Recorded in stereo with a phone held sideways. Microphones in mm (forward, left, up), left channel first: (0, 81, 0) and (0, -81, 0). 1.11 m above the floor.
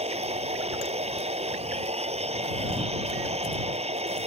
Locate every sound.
0.0 s a machine running: 40° right (ahead or behind)